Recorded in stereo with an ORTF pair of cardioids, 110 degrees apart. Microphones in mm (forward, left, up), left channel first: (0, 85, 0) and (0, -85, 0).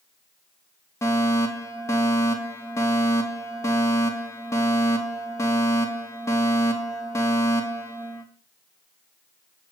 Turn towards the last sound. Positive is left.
turn(degrees=15)